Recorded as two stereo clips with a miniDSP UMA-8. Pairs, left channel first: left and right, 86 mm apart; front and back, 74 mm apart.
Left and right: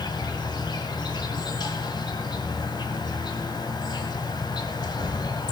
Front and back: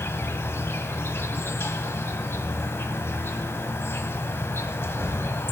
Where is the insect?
55° left, 1.2 m.